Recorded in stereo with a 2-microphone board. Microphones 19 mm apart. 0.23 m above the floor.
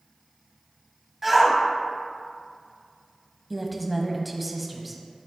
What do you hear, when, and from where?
1.2 s a shout: 10° right (ahead or behind), 1.8 m
3.5 s a woman speaking: 5° right (ahead or behind), 1.2 m